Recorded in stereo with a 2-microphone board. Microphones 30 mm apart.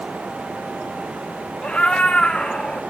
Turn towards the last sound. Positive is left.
turn(degrees=30)  # may be behind; listen again after turning